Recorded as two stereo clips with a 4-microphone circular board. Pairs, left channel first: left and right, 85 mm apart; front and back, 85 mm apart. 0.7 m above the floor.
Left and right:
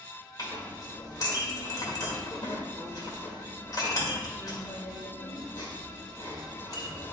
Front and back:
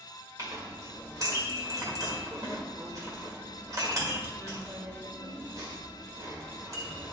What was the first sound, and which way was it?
A clink, 130° left.